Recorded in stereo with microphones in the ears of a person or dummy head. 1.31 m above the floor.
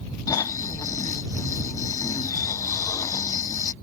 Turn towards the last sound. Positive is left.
turn(degrees=20)  # may be behind; listen again after turning